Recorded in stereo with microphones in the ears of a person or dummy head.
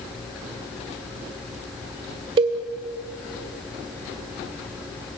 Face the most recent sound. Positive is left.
turn(degrees=-30)  # may be behind; listen again after turning